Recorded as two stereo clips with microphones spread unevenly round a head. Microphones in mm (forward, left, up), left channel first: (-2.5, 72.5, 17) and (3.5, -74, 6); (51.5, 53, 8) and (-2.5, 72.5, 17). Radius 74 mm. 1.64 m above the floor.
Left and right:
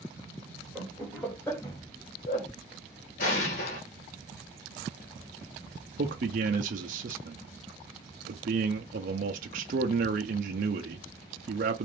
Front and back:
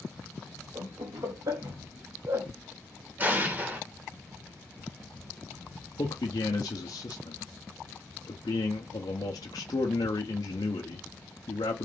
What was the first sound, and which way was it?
Laughter, straight behind.